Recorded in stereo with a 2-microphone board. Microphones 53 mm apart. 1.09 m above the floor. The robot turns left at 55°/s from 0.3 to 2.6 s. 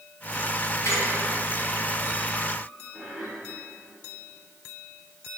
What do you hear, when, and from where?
0.8 s a squeak: 70° left (ahead or behind), 2.5 m; by 3.3 s 15° right (ahead or behind), 2.5 m